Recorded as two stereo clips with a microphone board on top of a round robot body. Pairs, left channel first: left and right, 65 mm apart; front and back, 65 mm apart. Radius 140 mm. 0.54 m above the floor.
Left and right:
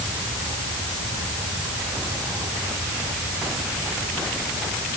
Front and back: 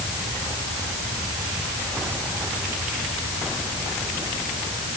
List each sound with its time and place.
Only background noise.